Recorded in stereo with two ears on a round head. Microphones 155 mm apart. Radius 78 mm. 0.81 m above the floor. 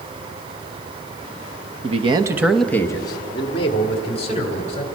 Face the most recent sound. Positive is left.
turn(degrees=35)  # may be behind; listen again after turning